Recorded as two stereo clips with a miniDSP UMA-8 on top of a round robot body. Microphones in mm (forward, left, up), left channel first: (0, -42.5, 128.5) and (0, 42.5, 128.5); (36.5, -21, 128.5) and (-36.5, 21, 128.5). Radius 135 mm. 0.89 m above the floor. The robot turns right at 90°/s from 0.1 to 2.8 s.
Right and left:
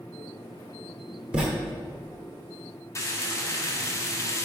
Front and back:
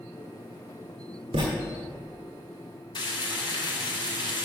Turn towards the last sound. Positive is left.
turn(degrees=-40)